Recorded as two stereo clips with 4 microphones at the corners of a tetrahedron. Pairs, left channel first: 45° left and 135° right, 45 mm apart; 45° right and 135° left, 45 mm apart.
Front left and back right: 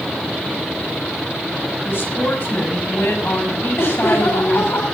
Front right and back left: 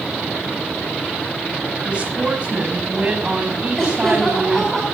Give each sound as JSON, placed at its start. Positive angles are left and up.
{"t": 1.8, "sound": "a woman speaking", "azimuth_deg": 75, "distance_m": 6.0}
{"t": 3.8, "sound": "laughter", "azimuth_deg": 35, "distance_m": 4.5}